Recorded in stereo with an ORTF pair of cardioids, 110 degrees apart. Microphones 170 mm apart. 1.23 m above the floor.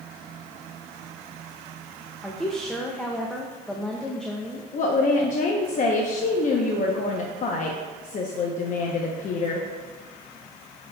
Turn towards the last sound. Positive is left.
turn(degrees=50)